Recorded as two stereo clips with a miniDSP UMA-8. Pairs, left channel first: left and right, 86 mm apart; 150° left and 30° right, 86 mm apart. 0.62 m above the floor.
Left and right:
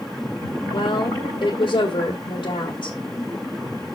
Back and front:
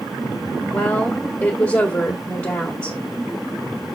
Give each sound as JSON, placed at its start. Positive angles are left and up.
{"t": 0.7, "sound": "a woman speaking", "azimuth_deg": 90, "distance_m": 1.8}